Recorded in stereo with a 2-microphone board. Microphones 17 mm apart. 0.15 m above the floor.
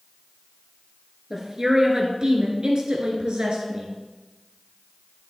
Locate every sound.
1.3 s a woman speaking: 30° right (ahead or behind), 2.5 m; by 3.9 s 55° right (ahead or behind), 2.5 m